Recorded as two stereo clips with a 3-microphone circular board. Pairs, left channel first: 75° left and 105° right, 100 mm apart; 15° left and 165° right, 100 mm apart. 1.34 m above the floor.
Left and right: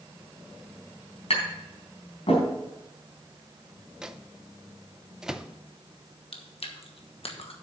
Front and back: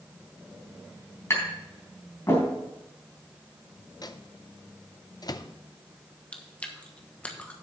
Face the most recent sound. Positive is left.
turn(degrees=95)